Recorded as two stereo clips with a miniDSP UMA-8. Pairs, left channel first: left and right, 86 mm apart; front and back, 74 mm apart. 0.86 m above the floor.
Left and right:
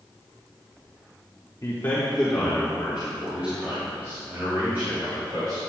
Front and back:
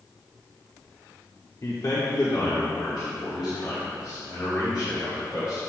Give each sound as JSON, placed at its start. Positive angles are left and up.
{"t": 1.6, "sound": "a man speaking", "azimuth_deg": 35, "distance_m": 1.7}